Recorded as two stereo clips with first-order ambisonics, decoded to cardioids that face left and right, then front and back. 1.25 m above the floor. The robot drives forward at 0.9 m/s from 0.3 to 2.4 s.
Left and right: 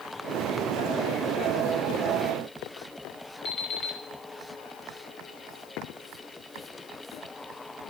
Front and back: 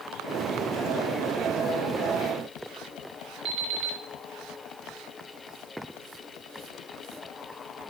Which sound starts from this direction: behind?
An alarm clock, at 3.5 s.